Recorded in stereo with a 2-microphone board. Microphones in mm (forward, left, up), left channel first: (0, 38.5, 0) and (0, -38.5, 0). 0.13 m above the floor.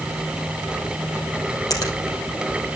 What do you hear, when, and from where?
1.7 s a finger snap: 50° left (ahead or behind), 3 m